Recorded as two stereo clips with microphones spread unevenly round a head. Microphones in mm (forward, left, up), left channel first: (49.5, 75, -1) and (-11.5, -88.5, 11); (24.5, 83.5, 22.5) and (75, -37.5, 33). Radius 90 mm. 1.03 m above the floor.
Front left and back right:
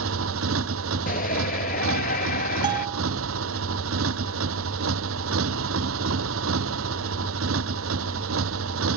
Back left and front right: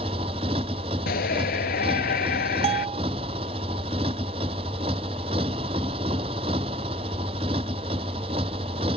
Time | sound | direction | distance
0.0 | a motorcycle | 130° right | ?
1.1 | a shout | 120° left | ?
2.6 | a bell | 55° right | ?